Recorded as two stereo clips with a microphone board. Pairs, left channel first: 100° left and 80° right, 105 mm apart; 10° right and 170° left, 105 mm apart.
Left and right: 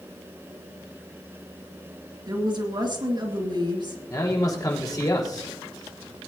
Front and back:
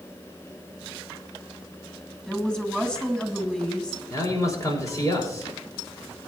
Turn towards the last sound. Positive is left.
turn(degrees=45)